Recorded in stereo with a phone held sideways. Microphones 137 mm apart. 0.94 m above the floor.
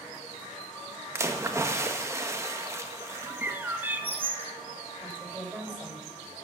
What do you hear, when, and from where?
1.1 s a splash: 20° right (ahead or behind), 1.4 m
3.3 s a bird: 15° right (ahead or behind), 1.5 m
5.0 s a woman speaking: 15° right (ahead or behind), 5 m